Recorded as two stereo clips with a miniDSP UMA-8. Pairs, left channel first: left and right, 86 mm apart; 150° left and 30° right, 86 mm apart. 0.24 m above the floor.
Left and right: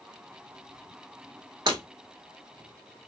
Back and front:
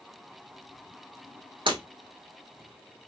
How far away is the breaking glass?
About 1.5 m.